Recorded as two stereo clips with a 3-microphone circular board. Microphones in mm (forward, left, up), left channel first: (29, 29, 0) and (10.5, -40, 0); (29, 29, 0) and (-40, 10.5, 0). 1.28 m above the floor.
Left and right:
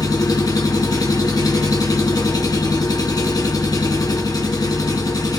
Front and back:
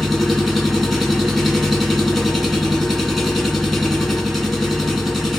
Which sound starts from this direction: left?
An engine running, at 0.0 s.